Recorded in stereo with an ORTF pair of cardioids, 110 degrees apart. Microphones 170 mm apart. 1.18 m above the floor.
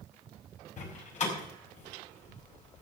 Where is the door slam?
45° left, 5.5 m.